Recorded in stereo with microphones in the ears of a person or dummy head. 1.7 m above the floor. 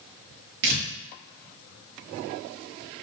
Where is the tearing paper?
70° right (ahead or behind), 0.7 m.